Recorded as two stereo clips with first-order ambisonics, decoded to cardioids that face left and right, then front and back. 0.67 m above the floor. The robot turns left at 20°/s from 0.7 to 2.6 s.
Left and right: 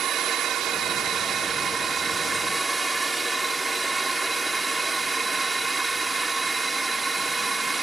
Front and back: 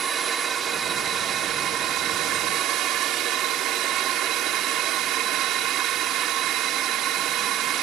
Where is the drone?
130° right; by 7.8 s 165° right.